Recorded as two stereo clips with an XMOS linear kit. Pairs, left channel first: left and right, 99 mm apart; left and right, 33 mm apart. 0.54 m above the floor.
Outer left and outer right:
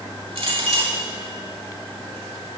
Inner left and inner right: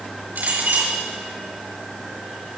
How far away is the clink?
About 7 m.